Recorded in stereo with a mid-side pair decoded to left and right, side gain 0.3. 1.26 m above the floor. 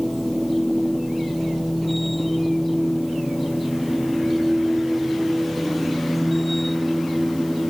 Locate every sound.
0.0 s a machine running: 5° left